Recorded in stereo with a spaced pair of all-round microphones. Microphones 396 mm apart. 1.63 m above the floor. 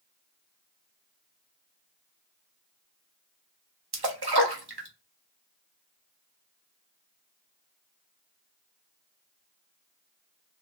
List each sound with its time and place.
3.9 s a splash: 70° right (ahead or behind), 0.9 m